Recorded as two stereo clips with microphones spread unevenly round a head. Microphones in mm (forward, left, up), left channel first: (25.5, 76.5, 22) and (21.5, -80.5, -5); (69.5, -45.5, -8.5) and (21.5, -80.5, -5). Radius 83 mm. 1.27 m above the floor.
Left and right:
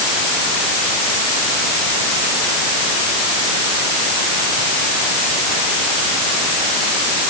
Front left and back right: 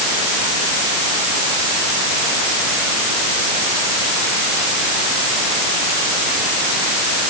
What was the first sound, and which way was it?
Only background noise.